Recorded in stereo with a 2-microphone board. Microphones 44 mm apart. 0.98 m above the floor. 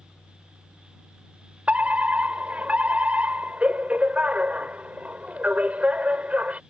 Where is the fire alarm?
30° right (ahead or behind).